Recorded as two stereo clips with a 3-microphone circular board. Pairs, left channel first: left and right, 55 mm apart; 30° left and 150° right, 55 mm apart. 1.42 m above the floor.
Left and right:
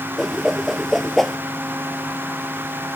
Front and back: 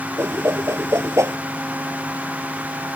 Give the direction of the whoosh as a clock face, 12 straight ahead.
6 o'clock.